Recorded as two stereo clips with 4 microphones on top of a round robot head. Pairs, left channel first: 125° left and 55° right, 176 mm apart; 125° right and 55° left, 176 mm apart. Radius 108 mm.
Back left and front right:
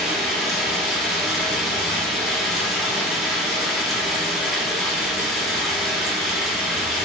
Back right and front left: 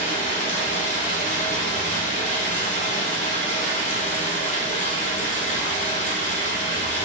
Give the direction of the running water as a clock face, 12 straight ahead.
5 o'clock.